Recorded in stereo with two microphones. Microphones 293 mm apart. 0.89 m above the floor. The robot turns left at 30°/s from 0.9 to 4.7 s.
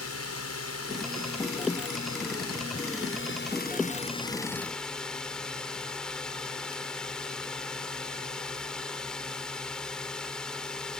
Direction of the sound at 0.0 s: 115° left.